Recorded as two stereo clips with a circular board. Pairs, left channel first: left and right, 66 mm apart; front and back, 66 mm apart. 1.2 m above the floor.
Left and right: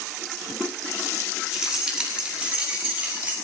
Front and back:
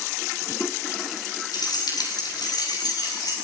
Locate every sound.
1.5 s keys jangling: 10° right, 5.5 m; by 3.4 s 25° right, 7 m